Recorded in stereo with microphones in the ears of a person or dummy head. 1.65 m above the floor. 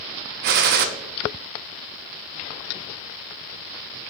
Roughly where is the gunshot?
Right.